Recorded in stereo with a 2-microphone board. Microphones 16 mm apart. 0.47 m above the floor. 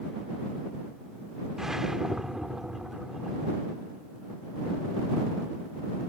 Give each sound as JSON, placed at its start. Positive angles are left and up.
{"t": 1.6, "sound": "a whoosh", "side_deg": -30}